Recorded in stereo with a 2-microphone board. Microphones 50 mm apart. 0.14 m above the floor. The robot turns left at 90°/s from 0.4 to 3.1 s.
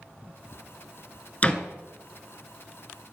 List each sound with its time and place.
1.4 s a door slam: 30° left (ahead or behind), 1.2 m; by 1.6 s 15° left (ahead or behind), 1.2 m